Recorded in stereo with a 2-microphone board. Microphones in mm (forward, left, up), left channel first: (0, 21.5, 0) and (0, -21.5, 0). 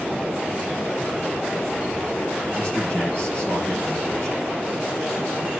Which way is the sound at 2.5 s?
35° left (ahead or behind).